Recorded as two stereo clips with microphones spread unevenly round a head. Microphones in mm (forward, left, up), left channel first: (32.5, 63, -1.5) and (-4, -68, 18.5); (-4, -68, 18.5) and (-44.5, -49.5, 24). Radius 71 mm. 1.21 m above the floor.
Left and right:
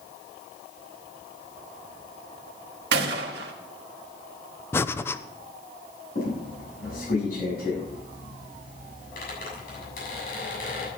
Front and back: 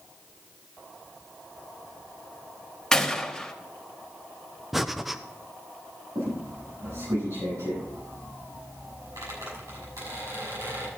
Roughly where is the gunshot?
Right.